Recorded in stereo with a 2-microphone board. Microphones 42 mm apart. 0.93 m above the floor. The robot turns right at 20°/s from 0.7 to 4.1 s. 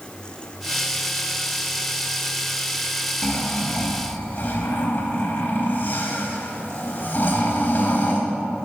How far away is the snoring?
About 1.0 m.